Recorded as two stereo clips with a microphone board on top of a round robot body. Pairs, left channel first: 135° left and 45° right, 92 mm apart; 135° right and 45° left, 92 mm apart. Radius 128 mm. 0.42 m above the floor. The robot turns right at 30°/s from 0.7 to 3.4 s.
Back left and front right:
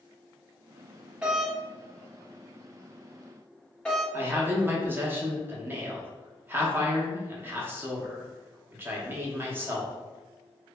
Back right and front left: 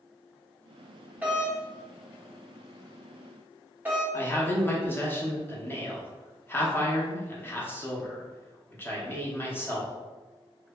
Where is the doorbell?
10° left, 1.2 m; by 4.0 s 75° left, 1.2 m.